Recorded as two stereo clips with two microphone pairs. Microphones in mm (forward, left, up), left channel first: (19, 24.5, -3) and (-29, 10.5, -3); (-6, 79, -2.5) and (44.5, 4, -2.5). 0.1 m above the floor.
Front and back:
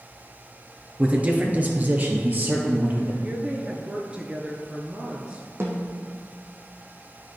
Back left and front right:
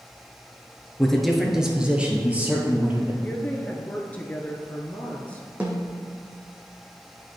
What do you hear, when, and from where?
1.0 s a man speaking: 160° right, 1.1 m; by 3.1 s 120° right, 2 m
3.2 s a woman speaking: 170° left, 1.2 m
5.6 s a snare drum: 130° right, 1.5 m